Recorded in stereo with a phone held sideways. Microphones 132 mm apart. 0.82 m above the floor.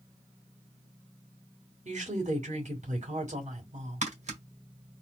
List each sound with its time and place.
1.9 s a woman speaking: 65° right (ahead or behind), 2.5 m
4.0 s tapping: 70° right (ahead or behind), 2.0 m